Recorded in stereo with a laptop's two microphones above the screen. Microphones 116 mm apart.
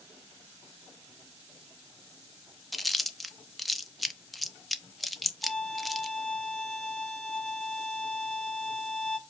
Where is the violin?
5° left (ahead or behind), 0.8 m.